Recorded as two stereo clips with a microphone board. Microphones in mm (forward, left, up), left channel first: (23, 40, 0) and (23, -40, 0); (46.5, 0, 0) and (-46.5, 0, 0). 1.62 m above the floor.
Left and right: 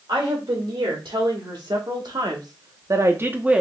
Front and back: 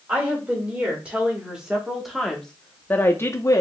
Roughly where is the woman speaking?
Right.